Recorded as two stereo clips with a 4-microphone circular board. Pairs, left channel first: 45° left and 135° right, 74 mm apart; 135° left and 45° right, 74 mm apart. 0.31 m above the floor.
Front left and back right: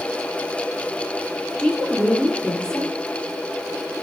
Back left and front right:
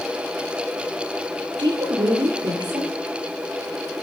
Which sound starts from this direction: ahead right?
A woman speaking, at 1.6 s.